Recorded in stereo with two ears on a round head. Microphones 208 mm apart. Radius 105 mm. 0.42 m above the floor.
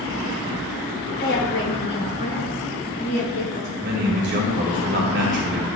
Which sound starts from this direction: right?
A man speaking, at 3.8 s.